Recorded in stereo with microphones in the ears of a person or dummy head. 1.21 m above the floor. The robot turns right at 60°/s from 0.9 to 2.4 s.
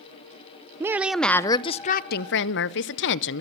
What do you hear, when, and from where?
0.8 s a woman speaking: 15° right, 0.8 m; by 3.4 s 75° left, 0.8 m